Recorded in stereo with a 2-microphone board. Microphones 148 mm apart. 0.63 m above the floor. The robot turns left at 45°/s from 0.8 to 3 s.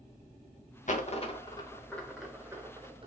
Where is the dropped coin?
55° left (ahead or behind), 0.6 m; by 3.1 s 35° right (ahead or behind), 0.6 m.